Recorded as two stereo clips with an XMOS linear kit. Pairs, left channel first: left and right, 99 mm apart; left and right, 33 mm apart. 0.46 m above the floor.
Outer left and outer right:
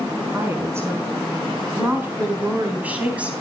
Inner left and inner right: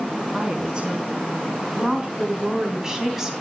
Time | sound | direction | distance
0.3 | a woman speaking | 30° right (ahead or behind) | 4.5 m